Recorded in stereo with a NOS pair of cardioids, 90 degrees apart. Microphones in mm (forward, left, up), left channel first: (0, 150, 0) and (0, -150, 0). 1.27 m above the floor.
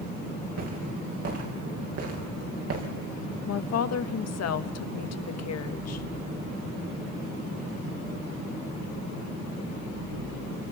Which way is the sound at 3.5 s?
55° left.